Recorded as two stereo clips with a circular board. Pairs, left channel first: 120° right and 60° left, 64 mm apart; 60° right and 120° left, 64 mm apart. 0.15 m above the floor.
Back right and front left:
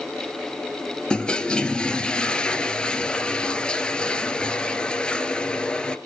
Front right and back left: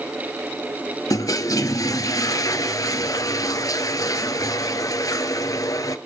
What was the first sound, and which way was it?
A toilet flushing, 45° right.